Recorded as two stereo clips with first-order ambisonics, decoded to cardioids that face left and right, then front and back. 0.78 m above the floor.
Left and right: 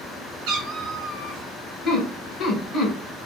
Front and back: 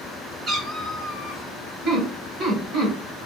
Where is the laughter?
145° left, 1.3 m.